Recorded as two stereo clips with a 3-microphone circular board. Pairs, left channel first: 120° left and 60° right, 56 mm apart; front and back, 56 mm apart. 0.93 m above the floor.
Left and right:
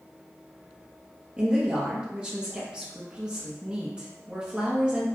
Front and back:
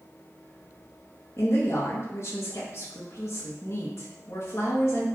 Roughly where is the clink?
No clink in this recording.